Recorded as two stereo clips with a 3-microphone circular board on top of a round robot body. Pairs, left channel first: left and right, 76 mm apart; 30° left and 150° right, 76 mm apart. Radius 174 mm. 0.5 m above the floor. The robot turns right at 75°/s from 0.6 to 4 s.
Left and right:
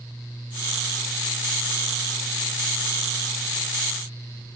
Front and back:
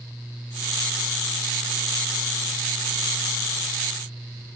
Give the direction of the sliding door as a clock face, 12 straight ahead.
I don't hear a sliding door.